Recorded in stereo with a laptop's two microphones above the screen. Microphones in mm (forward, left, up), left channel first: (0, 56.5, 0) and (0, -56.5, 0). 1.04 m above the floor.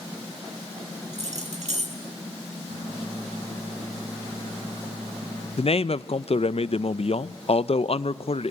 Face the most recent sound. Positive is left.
turn(degrees=60)  # may be behind; listen again after turning